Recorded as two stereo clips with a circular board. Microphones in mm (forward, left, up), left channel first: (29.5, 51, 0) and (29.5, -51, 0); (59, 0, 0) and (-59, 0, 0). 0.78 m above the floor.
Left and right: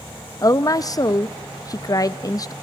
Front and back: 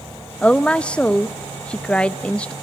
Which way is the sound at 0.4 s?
75° left.